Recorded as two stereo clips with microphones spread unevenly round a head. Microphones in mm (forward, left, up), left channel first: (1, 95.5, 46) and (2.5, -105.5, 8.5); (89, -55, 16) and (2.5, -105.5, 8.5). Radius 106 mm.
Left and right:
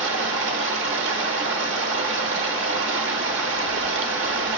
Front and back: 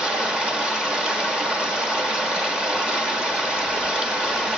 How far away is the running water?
About 1.0 m.